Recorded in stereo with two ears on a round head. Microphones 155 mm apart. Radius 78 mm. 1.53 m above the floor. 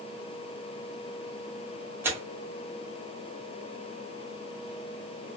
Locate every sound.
2.0 s tearing paper: 15° right (ahead or behind), 0.7 m